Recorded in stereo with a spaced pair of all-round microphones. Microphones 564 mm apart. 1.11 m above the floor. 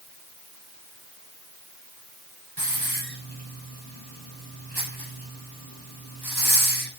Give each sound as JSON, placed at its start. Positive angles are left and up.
{"t": 2.6, "sound": "a hiss", "side_deg": -40, "distance_m": 7.0}